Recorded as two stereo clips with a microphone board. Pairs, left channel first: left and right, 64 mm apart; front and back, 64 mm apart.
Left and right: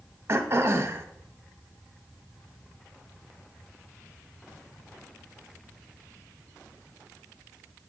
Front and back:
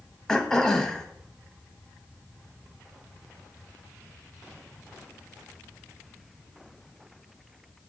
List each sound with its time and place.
0.3 s throat clearing: 75° right, 0.6 m